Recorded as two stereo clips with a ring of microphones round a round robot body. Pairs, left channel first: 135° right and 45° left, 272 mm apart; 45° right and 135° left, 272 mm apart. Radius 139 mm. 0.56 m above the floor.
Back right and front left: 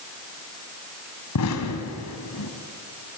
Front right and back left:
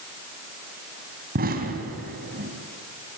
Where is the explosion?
165° right, 2.5 m.